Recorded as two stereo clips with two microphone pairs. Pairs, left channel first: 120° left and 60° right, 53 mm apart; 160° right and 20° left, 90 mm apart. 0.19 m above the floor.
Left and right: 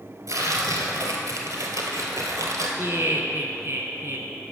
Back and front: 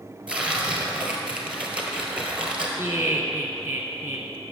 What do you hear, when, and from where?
0.3 s tearing paper: 60° right, 1.4 m
2.8 s laughter: 40° right, 2 m